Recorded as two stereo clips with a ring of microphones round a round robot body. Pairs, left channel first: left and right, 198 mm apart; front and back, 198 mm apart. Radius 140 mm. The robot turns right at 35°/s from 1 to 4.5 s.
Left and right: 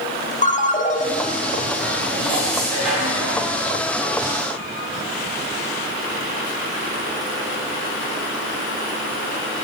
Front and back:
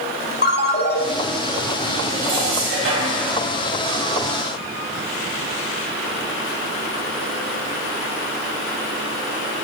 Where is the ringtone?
40° left, 1.3 m.